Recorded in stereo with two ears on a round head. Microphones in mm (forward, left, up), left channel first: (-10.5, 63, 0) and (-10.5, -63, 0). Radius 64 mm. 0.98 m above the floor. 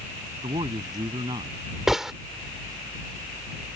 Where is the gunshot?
5° right (ahead or behind).